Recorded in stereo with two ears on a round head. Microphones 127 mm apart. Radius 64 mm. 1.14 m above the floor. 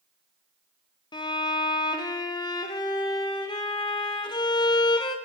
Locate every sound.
1.1 s a violin: 30° left (ahead or behind), 0.6 m